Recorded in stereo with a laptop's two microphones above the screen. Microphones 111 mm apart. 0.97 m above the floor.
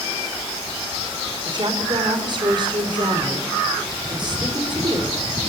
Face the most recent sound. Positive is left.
turn(degrees=-45)  # may be behind; listen again after turning